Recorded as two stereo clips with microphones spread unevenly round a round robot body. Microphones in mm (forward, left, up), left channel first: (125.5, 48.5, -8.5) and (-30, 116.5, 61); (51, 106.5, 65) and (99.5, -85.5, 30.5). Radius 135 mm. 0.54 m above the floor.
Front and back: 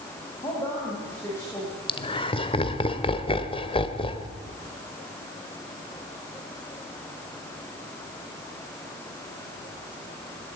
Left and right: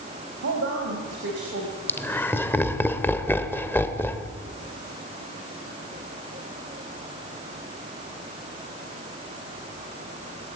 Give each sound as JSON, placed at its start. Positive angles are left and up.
{"t": 0.4, "sound": "a woman speaking", "azimuth_deg": -95, "distance_m": 4.0}
{"t": 1.9, "sound": "laughter", "azimuth_deg": 20, "distance_m": 2.0}